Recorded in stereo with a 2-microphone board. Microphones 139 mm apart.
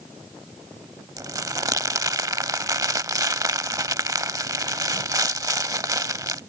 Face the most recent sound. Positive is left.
turn(degrees=-25)  # may be behind; listen again after turning